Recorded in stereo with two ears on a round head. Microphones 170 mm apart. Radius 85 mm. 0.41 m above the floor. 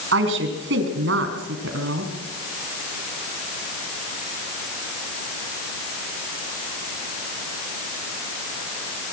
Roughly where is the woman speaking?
Right.